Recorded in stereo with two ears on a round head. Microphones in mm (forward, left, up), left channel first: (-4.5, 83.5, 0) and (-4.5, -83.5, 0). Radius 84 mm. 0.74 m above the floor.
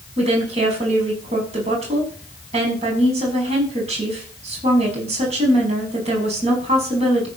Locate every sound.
0.2 s a woman speaking: 35° right (ahead or behind), 5.5 m